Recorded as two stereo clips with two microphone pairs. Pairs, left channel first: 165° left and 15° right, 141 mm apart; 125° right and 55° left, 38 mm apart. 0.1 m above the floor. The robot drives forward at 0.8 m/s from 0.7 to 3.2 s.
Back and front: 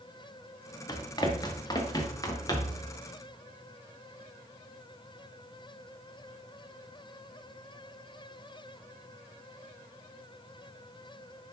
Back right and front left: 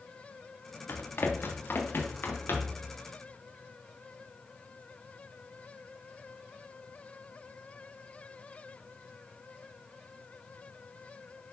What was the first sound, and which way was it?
Running footsteps, 135° right.